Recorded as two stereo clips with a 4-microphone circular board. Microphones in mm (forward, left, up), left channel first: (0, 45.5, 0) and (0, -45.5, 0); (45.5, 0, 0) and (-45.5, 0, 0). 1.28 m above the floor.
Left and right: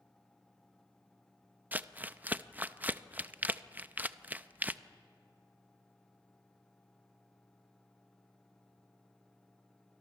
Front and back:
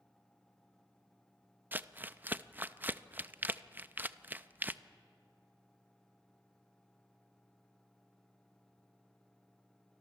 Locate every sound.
1.7 s crumpling: 135° right, 0.6 m